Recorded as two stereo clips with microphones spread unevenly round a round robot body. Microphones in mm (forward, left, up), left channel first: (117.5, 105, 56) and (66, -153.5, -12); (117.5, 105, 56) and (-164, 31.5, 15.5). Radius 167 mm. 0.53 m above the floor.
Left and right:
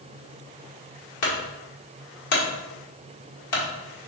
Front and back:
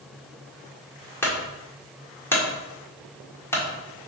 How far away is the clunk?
About 1.5 m.